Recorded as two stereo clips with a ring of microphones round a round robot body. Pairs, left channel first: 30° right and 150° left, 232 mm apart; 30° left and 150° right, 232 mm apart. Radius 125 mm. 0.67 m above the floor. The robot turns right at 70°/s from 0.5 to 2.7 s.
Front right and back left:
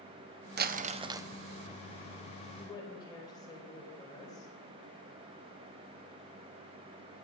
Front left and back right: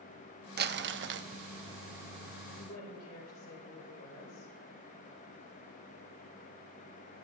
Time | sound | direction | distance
0.6 | crumpling | straight behind | 0.7 m
2.5 | a woman speaking | 35° left | 4 m